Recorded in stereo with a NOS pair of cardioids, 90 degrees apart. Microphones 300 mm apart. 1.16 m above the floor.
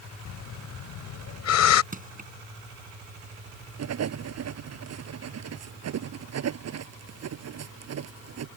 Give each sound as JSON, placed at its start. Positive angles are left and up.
{"t": 0.2, "sound": "breathing", "azimuth_deg": 65}
{"t": 1.9, "sound": "crushing", "azimuth_deg": -30}
{"t": 3.8, "sound": "writing", "azimuth_deg": -60}